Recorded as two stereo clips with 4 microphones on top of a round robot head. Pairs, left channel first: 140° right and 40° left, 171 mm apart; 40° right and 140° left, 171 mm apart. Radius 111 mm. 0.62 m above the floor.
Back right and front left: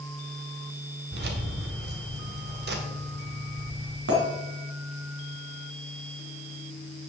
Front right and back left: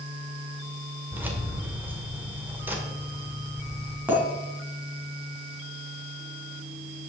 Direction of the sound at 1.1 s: 60° left.